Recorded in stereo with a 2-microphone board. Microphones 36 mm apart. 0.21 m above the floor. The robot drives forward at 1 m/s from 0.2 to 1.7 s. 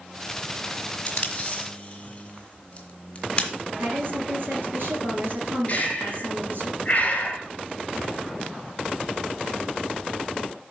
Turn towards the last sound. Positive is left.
turn(degrees=35)  # may be behind; listen again after turning